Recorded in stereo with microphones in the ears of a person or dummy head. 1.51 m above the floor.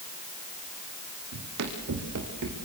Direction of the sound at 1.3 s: 65° right (ahead or behind).